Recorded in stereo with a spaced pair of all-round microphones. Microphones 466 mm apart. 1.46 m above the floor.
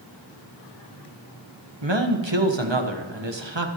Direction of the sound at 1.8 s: 65° right (ahead or behind).